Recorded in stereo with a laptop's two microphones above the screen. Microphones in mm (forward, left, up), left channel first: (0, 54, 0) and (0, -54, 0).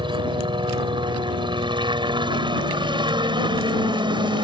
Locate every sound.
0.0 s a helicopter: 50° right (ahead or behind)